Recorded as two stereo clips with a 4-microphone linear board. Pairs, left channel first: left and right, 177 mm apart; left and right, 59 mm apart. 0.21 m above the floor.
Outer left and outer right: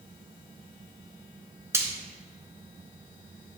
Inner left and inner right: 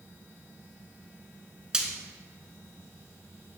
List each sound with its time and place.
1.7 s frying: 15° right (ahead or behind), 1.1 m